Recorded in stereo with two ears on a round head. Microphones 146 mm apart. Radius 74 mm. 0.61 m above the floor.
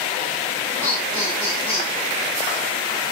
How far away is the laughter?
About 5 m.